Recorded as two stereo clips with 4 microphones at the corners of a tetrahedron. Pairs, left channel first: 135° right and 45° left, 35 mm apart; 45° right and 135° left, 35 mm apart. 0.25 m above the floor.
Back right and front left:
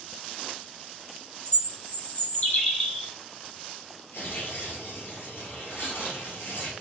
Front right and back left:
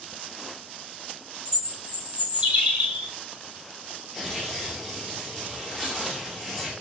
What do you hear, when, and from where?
1.4 s a bird: 170° right, 1.9 m
4.1 s tearing paper: 130° right, 1.6 m